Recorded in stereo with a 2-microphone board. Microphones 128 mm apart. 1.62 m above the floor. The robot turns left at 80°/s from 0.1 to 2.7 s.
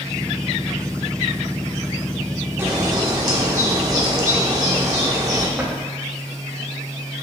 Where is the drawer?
10° right (ahead or behind), 1.8 m.